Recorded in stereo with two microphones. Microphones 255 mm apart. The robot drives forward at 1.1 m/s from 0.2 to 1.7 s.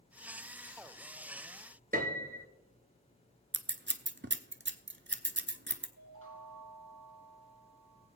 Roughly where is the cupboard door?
No cupboard door in this recording.